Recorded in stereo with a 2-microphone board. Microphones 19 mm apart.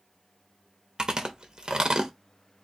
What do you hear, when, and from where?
1.0 s chewing: 35° right (ahead or behind), 0.9 m